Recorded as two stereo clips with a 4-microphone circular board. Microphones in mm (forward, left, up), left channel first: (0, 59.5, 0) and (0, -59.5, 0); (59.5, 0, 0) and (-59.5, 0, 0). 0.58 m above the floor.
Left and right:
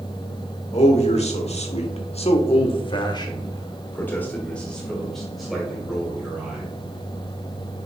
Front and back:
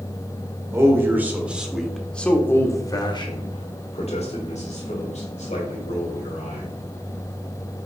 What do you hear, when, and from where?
0.7 s a man speaking: 115° left, 1.6 m; by 6.7 s 5° right, 2.5 m